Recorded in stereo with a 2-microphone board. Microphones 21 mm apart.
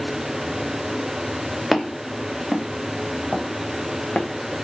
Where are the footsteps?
Centre (ahead or behind), 1.5 m; by 4.3 s 65° left (ahead or behind), 1.4 m.